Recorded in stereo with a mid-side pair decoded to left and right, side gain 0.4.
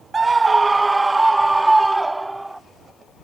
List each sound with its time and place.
0.1 s a scream: 35° right; by 2.6 s 15° right